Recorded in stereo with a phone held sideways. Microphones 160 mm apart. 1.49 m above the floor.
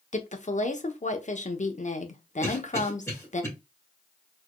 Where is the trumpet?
No trumpet in this recording.